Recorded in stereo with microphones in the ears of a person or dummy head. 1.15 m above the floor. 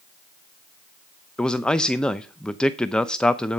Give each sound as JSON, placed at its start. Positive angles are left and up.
{"t": 1.4, "sound": "a man speaking", "side_deg": 5, "distance_m": 0.6}